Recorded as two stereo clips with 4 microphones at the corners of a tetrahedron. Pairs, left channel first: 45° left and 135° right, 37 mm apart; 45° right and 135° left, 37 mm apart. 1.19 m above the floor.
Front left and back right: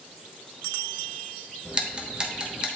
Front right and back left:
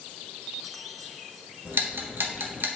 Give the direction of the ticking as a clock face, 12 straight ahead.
7 o'clock.